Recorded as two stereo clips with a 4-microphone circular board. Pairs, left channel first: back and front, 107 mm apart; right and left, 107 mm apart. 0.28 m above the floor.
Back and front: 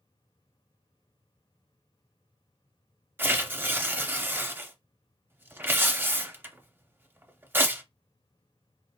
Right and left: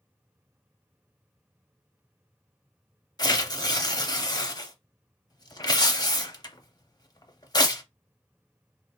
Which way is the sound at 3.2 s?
60° right.